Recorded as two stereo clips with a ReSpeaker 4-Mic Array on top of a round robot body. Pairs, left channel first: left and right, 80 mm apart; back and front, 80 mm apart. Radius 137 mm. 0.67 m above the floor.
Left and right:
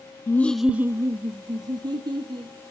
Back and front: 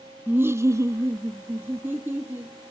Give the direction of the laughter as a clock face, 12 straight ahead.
10 o'clock.